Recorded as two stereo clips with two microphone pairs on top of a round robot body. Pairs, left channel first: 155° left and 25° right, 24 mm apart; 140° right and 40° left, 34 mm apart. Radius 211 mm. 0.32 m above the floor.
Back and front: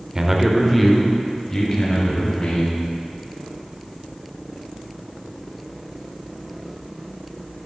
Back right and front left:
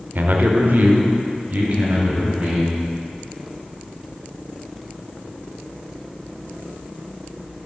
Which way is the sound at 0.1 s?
40° left.